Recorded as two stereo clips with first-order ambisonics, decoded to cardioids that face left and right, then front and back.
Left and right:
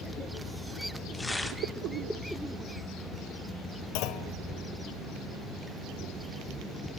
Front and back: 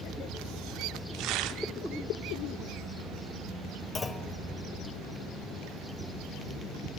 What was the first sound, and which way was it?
Tearing paper, 170° left.